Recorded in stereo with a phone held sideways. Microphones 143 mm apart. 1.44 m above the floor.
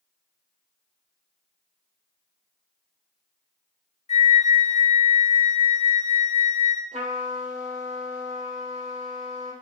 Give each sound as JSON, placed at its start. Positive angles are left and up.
{"t": 4.1, "sound": "a flute", "side_deg": 50, "distance_m": 0.5}
{"t": 6.9, "sound": "a trumpet", "side_deg": -55, "distance_m": 1.0}